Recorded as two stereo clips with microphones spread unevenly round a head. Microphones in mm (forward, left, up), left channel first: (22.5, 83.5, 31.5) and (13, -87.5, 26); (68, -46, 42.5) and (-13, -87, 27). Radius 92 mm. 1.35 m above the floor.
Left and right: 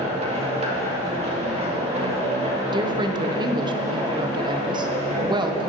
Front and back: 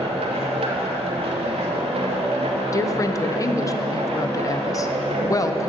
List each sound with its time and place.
0.0 s a machine running: 150° right, 1.6 m
2.7 s a woman speaking: 30° right, 1.0 m